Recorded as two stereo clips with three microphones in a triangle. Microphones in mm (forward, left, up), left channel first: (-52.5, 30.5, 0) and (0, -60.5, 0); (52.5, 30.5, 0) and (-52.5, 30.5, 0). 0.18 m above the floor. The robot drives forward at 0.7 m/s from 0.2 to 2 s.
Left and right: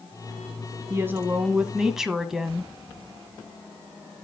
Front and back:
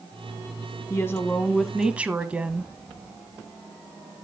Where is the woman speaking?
25° right, 1.1 m; by 2.7 s 135° right, 1.0 m.